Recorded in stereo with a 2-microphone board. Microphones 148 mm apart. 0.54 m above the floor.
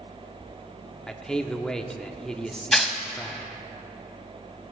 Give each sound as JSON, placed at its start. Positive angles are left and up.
{"t": 1.1, "sound": "a man speaking", "side_deg": 5, "distance_m": 0.7}
{"t": 2.7, "sound": "tearing paper", "side_deg": 0, "distance_m": 0.7}